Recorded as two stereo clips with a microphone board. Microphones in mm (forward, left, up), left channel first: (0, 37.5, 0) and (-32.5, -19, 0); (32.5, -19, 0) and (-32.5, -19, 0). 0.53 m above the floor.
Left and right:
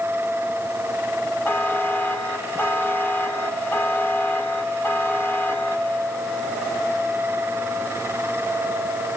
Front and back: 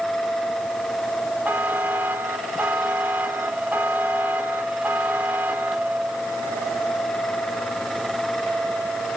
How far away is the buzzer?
About 1.8 m.